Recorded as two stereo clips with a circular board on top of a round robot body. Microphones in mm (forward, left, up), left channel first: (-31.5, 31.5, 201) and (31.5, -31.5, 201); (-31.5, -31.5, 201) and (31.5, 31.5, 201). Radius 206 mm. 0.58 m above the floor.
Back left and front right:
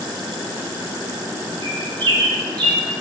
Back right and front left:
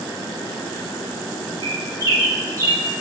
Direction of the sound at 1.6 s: 10° right.